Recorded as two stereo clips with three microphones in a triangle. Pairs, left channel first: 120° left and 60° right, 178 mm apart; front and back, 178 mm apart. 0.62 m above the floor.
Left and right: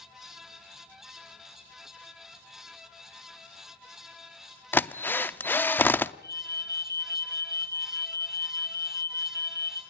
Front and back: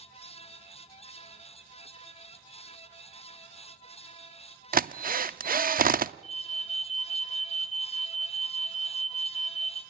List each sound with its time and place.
4.7 s a drill: 160° right, 0.6 m
6.2 s an alarm: 50° left, 5 m